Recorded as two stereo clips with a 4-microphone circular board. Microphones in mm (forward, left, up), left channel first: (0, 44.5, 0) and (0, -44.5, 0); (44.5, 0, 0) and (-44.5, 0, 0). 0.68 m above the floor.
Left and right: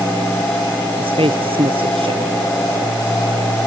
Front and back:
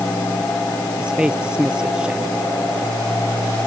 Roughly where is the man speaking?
Right.